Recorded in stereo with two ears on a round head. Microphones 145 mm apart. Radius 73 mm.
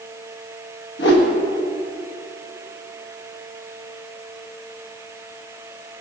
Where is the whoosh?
75° left (ahead or behind), 1.6 m.